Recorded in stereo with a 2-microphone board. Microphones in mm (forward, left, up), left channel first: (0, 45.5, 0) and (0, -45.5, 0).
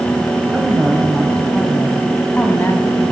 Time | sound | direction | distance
0.5 | a woman speaking | 5° right (ahead or behind) | 2.5 m